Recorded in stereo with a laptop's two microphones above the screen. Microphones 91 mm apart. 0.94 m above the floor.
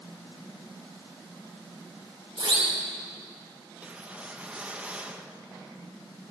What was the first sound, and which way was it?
A siren, 80° right.